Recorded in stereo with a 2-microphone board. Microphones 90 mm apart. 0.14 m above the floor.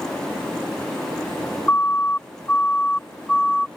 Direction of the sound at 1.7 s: 25° left (ahead or behind).